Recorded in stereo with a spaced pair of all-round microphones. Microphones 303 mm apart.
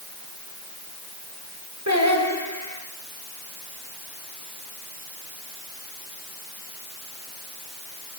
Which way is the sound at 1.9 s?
65° right (ahead or behind).